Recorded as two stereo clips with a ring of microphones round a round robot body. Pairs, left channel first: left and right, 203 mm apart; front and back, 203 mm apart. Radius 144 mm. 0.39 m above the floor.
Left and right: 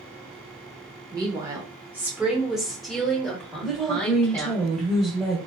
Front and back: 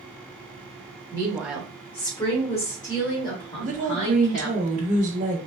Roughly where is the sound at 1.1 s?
Behind right.